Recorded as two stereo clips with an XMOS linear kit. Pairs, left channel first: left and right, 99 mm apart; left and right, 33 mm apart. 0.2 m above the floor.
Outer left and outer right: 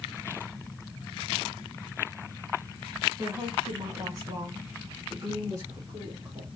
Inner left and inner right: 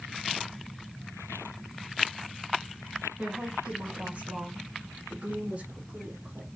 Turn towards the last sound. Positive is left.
turn(degrees=-30)  # may be behind; listen again after turning